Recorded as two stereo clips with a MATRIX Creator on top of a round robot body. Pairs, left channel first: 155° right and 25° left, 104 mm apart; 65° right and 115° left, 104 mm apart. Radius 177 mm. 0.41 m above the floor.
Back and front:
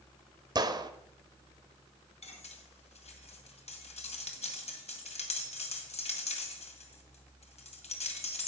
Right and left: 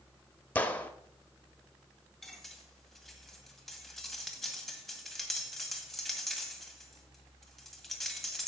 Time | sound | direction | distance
0.6 | a gunshot | straight ahead | 1.6 m
2.2 | cutlery clinking | 155° right | 2.0 m